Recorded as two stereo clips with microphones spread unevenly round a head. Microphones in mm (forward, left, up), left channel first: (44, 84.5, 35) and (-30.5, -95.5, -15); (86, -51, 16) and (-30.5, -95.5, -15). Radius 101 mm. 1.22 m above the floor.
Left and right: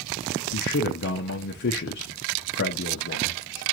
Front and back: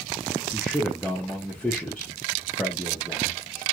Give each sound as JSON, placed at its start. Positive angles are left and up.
{"t": 0.5, "sound": "a man speaking", "azimuth_deg": 110, "distance_m": 0.5}